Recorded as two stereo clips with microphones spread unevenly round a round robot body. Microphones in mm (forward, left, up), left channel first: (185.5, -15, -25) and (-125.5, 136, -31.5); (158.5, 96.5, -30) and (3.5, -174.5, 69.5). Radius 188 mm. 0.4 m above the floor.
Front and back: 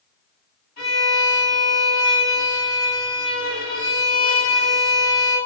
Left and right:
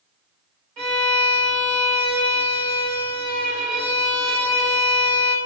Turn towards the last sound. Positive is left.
turn(degrees=-95)